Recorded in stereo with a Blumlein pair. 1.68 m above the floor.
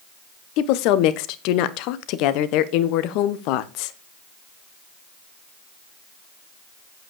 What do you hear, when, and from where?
0.6 s a woman speaking: 40° left, 1.1 m